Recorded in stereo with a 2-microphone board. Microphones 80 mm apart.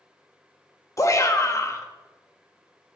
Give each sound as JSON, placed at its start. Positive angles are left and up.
{"t": 1.0, "sound": "a shout", "side_deg": 40, "distance_m": 1.0}